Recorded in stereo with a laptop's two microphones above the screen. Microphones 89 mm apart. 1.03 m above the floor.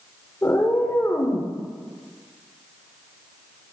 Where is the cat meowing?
25° left (ahead or behind), 0.7 m.